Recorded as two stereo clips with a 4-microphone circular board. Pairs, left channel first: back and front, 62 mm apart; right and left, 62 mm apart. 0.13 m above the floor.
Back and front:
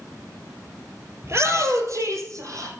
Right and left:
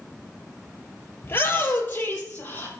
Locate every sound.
1.2 s a shout: 40° right, 2.5 m; by 2.7 s 30° right, 4 m